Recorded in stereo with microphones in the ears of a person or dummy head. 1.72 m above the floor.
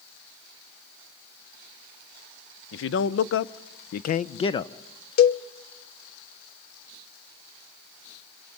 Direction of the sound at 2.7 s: 75° left (ahead or behind).